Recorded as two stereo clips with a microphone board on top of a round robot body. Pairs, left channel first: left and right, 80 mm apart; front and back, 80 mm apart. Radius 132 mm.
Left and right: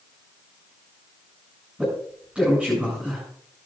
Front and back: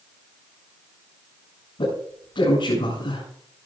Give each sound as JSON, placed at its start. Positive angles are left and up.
{"t": 1.8, "sound": "a man speaking", "azimuth_deg": -5, "distance_m": 8.5}